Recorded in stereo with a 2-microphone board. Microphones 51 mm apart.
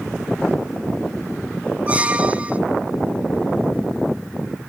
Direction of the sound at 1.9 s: 25° right (ahead or behind).